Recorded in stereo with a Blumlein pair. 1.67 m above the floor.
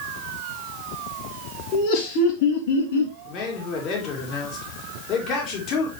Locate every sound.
1.7 s laughter: 40° left, 4 m; by 3.2 s 65° left, 4 m
3.3 s a man speaking: 35° left, 4 m